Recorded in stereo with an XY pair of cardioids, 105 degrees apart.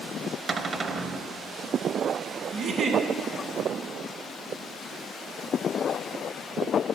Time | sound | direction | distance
0.5 | a cupboard door | 40° right | 0.7 m
2.5 | a giggle | 65° right | 1.3 m